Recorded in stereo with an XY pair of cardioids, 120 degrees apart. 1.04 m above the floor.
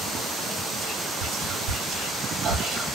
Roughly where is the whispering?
Right.